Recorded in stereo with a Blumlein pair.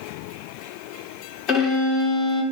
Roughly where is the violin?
Ahead left.